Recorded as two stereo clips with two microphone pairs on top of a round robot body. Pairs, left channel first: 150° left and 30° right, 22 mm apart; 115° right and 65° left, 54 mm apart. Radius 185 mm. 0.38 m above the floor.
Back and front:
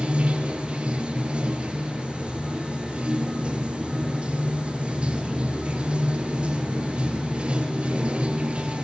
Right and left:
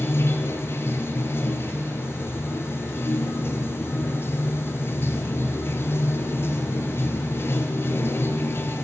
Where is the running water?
70° right, 1.8 m.